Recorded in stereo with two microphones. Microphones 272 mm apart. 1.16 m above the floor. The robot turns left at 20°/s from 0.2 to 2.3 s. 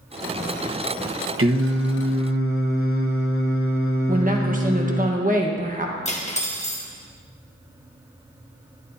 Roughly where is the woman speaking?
Right.